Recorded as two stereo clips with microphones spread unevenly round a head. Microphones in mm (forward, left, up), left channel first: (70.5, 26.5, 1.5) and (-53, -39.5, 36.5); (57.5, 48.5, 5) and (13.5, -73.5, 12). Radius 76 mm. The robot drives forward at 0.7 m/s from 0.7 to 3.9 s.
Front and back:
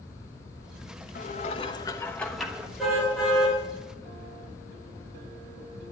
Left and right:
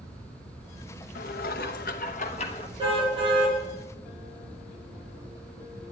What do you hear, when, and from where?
1.1 s dishes clattering: 70° left, 1.0 m; by 2.7 s 130° left, 1.2 m
2.8 s a car horn: 60° right, 8.5 m; by 3.6 s 65° right, 8.5 m